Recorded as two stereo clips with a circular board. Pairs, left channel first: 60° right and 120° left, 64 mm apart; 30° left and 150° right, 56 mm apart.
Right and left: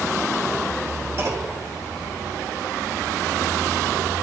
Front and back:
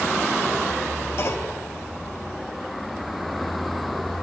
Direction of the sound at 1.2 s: 70° left.